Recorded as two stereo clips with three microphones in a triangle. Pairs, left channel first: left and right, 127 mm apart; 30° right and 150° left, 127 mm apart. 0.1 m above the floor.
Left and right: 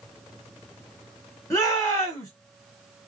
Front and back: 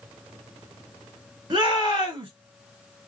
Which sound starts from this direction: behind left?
A shout, at 1.5 s.